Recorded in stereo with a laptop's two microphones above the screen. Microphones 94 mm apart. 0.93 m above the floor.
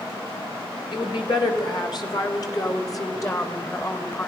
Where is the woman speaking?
55° left (ahead or behind), 5 m; by 4.3 s 25° left (ahead or behind), 4.5 m.